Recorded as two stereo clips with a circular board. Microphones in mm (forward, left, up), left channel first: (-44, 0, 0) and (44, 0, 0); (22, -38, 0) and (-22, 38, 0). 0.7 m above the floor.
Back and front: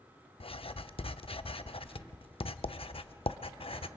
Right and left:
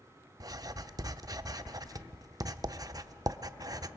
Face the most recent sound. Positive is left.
turn(degrees=170)